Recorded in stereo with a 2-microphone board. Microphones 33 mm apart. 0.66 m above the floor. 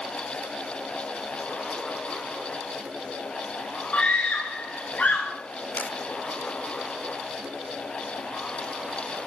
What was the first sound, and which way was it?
A scream, 45° left (ahead or behind).